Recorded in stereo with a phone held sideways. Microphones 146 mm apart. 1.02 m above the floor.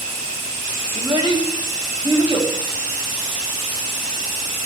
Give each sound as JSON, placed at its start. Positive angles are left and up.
{"t": 0.9, "sound": "a child speaking", "side_deg": -35, "distance_m": 2.5}